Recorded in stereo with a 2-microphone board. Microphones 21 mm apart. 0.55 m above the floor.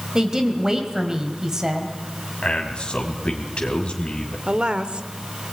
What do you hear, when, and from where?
0.1 s a woman speaking: 25° right (ahead or behind), 3 m
2.4 s a man speaking: 60° left (ahead or behind), 3 m
4.5 s a woman speaking: 50° right (ahead or behind), 1.3 m